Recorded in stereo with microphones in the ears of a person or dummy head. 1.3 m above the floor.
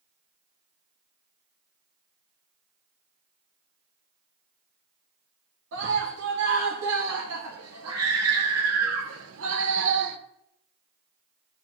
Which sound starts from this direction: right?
A scream, at 5.7 s.